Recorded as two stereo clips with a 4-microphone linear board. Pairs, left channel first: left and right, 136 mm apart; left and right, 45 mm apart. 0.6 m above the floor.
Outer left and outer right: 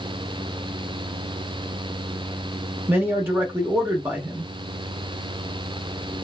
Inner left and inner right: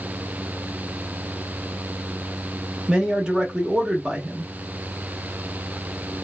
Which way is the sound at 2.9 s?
15° right (ahead or behind).